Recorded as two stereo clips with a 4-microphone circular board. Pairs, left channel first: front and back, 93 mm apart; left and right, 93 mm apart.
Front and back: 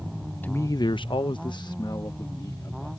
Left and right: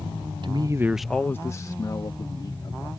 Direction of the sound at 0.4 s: 70° right.